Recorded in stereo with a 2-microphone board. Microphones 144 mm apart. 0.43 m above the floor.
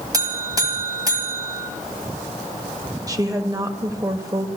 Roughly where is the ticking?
I don't hear ticking.